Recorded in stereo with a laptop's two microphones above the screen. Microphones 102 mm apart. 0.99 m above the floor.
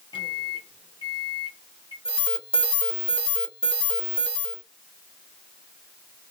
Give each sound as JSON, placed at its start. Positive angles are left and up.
{"t": 0.1, "sound": "a microwave", "side_deg": 60, "distance_m": 1.5}
{"t": 2.0, "sound": "an alarm", "side_deg": 75, "distance_m": 1.4}